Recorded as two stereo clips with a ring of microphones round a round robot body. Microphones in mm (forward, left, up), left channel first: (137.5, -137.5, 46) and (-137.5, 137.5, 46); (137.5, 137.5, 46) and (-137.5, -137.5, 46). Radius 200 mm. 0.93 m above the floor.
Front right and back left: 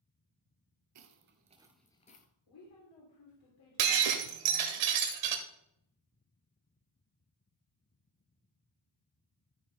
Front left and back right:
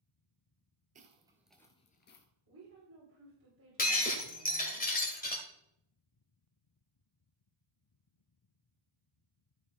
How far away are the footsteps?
About 1.2 m.